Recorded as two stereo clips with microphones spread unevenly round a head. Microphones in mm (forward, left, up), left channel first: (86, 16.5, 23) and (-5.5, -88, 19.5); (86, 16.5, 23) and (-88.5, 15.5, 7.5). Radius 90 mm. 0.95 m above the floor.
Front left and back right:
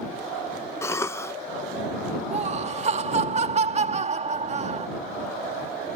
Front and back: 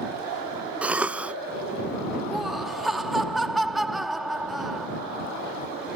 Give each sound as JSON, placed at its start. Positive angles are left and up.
{"t": 0.8, "sound": "a cough", "azimuth_deg": 110}
{"t": 2.3, "sound": "laughter", "azimuth_deg": -90}